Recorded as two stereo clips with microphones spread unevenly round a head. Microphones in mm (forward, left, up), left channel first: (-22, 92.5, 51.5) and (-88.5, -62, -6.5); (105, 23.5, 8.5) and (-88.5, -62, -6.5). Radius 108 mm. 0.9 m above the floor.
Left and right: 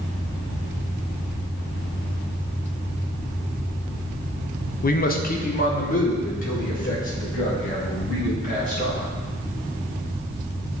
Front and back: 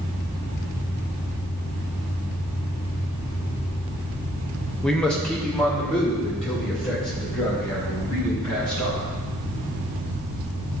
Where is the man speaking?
115° left, 0.6 m; by 9.1 s 110° left, 5.5 m.